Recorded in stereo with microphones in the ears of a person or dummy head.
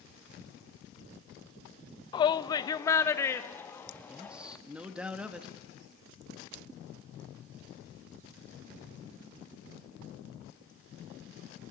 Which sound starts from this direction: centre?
A man speaking, at 4.1 s.